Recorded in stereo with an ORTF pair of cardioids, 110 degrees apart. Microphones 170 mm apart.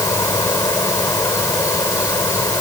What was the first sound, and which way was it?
An insect, 20° left.